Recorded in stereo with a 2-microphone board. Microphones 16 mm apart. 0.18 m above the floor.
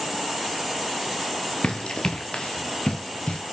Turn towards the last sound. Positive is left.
turn(degrees=80)